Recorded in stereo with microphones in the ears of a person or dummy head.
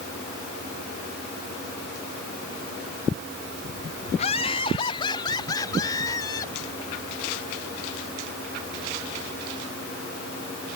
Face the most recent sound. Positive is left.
turn(degrees=20)  # may be behind; listen again after turning